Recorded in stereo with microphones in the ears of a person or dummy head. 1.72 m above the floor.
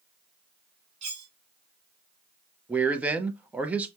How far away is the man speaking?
About 0.7 m.